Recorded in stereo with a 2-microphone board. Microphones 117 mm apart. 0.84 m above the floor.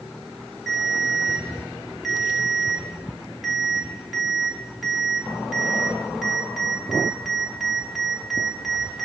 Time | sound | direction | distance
0.7 | a ringtone | centre (ahead or behind) | 1.4 m